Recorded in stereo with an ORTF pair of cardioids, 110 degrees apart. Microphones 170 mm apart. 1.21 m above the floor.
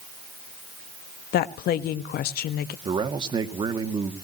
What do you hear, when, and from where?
1.3 s a woman speaking: 65° left, 1.5 m
2.9 s a man speaking: 30° right, 2.5 m